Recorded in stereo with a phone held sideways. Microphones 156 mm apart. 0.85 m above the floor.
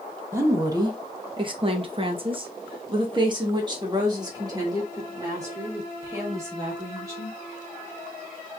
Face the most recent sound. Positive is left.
turn(degrees=-20)  # may be behind; listen again after turning